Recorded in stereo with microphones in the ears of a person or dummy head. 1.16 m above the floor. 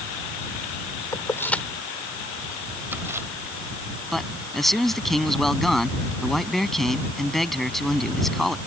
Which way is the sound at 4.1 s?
Centre (ahead or behind).